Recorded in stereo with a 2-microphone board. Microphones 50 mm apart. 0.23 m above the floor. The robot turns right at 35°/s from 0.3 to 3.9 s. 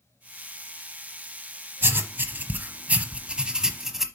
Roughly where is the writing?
Right.